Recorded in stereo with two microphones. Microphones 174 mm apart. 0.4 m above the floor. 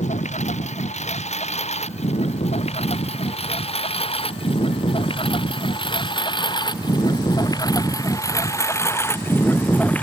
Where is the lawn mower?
40° left (ahead or behind); by 10.1 s 10° left (ahead or behind).